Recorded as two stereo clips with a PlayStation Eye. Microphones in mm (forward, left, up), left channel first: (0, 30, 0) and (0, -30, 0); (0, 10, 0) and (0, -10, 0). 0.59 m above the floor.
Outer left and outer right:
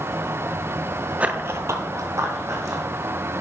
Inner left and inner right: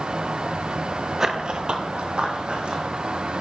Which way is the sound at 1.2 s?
20° right (ahead or behind).